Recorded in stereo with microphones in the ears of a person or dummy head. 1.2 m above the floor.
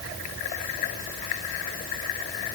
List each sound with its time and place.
Only background noise.